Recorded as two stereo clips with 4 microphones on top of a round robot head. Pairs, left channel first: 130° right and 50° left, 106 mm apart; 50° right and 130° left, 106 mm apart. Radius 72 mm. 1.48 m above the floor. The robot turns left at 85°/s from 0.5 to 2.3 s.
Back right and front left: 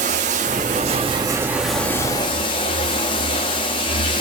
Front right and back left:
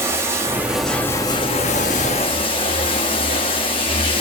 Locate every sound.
0.0 s running water: 65° left, 1.2 m; by 4.2 s 90° right, 1.2 m